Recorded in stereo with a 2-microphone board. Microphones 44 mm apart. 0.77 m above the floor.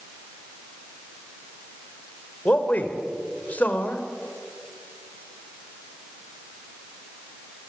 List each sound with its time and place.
2.5 s a man speaking: 35° left (ahead or behind), 3.5 m